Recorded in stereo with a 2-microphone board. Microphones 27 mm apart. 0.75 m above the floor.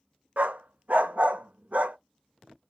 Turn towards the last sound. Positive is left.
turn(degrees=-60)  # may be behind; listen again after turning